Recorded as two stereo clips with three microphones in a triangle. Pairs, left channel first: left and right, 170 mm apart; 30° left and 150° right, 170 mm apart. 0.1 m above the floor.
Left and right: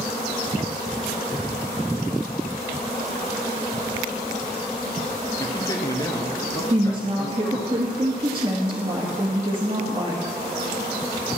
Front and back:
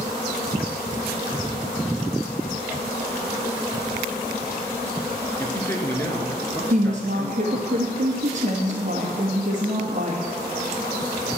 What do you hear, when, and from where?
5.4 s a man speaking: 80° left, 1.5 m
6.7 s a woman speaking: 135° right, 1.9 m